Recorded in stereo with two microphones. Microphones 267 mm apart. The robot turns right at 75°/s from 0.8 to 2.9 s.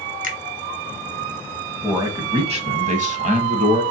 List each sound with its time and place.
0.2 s a finger snap: 30° right (ahead or behind), 1.1 m
1.8 s a man speaking: 5° right (ahead or behind), 1.0 m; by 3.8 s 25° right (ahead or behind), 1.0 m